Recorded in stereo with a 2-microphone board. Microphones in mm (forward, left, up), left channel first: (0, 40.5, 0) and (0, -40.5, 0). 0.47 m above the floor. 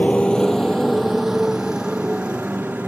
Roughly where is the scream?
No scream in this recording.